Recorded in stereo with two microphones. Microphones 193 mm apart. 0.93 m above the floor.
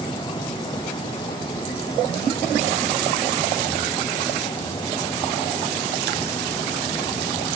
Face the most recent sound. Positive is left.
No sound to turn to.